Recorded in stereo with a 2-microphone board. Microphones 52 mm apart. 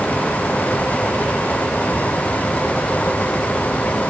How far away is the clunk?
I don't hear a clunk.